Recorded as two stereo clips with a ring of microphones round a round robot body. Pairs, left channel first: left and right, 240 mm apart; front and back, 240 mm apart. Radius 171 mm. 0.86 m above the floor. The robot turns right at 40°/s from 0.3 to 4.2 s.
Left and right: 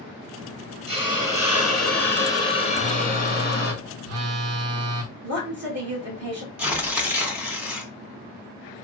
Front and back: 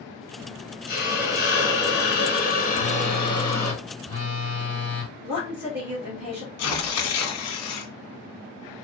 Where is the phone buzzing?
130° right, 0.7 m; by 5.1 s 70° right, 0.7 m.